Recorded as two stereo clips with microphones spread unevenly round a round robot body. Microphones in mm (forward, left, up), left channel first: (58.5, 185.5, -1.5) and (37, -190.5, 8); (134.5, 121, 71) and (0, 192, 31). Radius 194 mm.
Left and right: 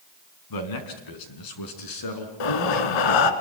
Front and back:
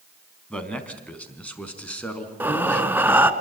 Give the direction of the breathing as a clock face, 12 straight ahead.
10 o'clock.